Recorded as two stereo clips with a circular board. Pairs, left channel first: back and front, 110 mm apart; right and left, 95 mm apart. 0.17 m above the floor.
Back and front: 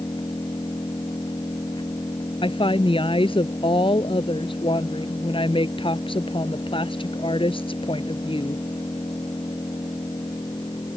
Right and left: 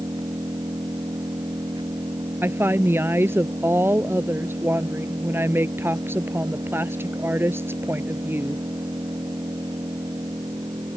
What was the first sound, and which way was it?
An engine running, 130° left.